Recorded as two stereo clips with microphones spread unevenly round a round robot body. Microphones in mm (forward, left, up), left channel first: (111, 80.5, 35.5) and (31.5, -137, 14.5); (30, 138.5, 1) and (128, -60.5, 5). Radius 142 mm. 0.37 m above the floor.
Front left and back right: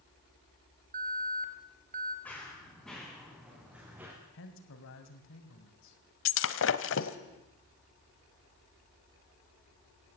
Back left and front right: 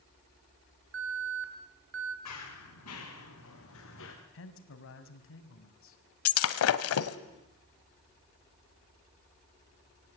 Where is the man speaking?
110° left, 3 m.